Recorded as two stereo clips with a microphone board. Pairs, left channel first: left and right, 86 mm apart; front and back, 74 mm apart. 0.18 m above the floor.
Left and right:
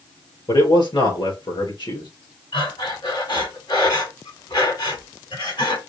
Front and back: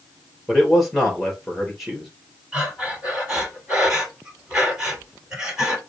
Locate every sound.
0.5 s a man speaking: 95° left, 2.5 m
2.5 s breathing: 105° left, 4 m